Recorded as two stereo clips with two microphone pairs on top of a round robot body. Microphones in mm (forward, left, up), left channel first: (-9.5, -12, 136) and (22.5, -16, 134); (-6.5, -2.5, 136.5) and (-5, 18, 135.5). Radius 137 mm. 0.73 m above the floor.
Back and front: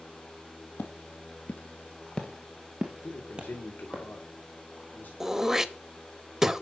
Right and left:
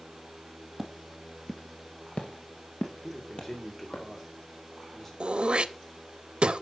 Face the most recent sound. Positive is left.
turn(degrees=65)